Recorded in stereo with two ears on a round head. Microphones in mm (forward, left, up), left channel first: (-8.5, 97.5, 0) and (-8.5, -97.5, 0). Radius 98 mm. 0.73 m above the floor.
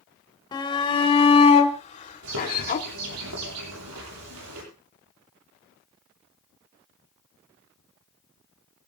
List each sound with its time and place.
0.5 s a shout: 20° left (ahead or behind), 3 m; by 2.9 s 45° left (ahead or behind), 2 m
2.2 s a bird: 80° right, 9 m